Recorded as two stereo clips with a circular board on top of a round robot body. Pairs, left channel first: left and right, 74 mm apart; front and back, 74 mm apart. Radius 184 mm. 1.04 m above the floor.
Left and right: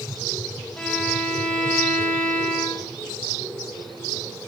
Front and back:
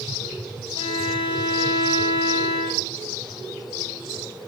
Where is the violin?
15° left, 1.4 m.